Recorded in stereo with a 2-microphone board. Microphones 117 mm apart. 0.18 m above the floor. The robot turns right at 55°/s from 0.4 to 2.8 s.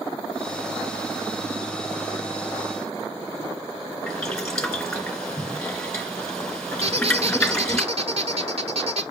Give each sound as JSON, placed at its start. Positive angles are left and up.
{"t": 4.1, "sound": "boiling", "side_deg": 5, "distance_m": 2.5}
{"t": 6.8, "sound": "a squeak", "side_deg": -60, "distance_m": 1.0}